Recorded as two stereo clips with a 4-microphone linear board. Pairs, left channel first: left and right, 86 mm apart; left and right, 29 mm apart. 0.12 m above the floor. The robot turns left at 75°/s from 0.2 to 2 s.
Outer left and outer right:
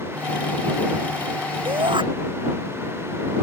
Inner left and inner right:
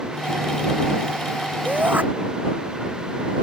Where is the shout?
80° right; by 2.0 s 70° right (ahead or behind).